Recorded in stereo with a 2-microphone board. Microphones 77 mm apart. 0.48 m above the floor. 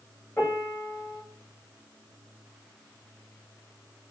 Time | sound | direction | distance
0.4 | a piano | 30° left (ahead or behind) | 1.7 m